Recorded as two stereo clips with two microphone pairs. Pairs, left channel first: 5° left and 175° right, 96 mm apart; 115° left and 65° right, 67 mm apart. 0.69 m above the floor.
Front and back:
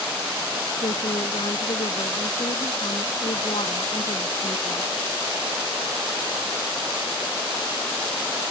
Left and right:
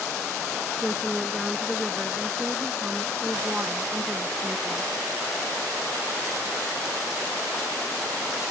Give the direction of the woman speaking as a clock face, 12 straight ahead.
11 o'clock.